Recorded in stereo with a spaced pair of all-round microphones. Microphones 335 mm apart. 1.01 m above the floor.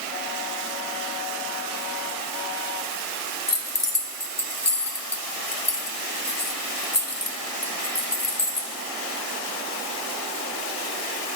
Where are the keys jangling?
50° left (ahead or behind), 0.8 m.